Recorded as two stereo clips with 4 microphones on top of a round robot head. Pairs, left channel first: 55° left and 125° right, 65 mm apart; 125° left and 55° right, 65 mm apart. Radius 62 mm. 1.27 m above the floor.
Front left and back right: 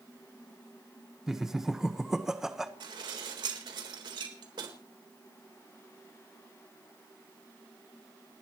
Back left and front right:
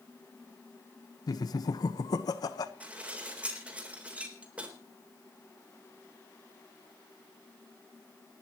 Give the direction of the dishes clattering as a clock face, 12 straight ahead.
4 o'clock.